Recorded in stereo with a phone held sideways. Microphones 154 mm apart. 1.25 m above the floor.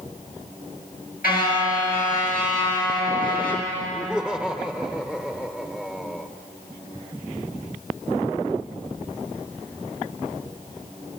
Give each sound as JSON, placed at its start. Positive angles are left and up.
{"t": 1.2, "sound": "a car horn", "side_deg": 85, "distance_m": 8.5}
{"t": 3.9, "sound": "laughter", "side_deg": 5, "distance_m": 1.1}